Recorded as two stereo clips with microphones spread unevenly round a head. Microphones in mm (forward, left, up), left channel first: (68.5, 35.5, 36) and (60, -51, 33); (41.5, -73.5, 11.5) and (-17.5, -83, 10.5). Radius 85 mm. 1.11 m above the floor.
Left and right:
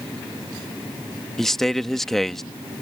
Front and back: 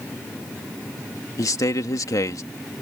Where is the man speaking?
Straight ahead.